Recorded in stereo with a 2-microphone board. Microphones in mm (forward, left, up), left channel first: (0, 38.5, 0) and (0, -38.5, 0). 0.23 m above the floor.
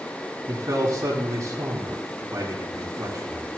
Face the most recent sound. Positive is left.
turn(degrees=-35)  # may be behind; listen again after turning